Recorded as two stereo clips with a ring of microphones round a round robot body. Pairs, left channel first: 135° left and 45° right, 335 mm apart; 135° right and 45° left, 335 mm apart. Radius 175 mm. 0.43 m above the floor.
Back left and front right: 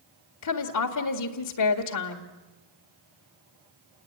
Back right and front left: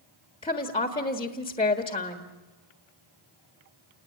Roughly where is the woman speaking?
Behind left.